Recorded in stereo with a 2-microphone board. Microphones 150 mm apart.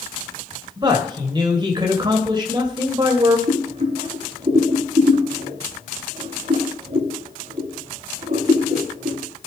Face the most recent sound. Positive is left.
turn(degrees=-55)  # may be behind; listen again after turning